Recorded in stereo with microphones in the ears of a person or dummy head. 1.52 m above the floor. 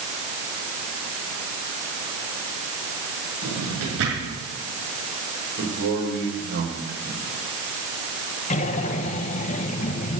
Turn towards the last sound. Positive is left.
turn(degrees=40)  # may be behind; listen again after turning